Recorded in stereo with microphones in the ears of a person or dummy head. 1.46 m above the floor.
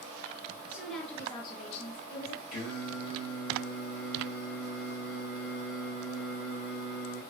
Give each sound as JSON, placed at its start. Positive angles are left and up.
{"t": 0.7, "sound": "a woman speaking", "side_deg": -5, "distance_m": 0.7}
{"t": 2.5, "sound": "singing", "side_deg": 50, "distance_m": 1.4}